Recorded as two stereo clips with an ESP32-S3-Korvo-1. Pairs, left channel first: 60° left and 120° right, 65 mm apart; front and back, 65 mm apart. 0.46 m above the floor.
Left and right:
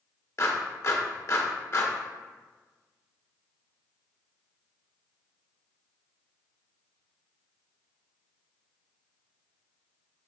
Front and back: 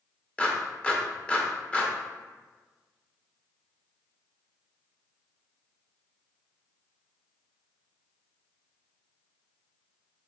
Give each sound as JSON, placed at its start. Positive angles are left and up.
{"t": 0.4, "sound": "a clap", "azimuth_deg": 65, "distance_m": 0.7}